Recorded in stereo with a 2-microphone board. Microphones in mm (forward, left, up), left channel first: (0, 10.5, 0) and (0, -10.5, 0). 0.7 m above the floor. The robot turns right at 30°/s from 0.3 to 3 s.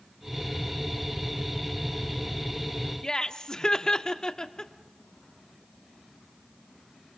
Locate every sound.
3.0 s laughter: 30° left (ahead or behind), 1.2 m